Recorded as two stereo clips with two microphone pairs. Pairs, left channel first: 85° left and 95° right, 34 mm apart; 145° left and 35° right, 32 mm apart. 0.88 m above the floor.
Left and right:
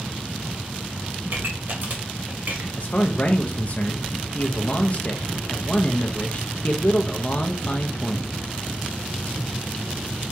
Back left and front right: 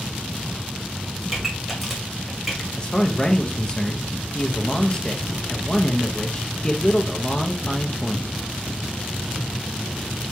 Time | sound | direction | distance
1.3 | a pop | 125° right | 2.0 m
2.8 | a man speaking | 90° left | 0.7 m